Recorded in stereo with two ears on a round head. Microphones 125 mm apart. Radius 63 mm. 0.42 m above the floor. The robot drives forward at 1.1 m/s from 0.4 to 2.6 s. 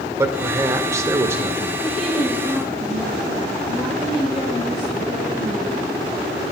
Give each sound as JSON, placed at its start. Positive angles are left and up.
{"t": 0.2, "sound": "a man speaking", "side_deg": -20, "distance_m": 1.2}
{"t": 1.8, "sound": "a woman speaking", "side_deg": 0, "distance_m": 8.0}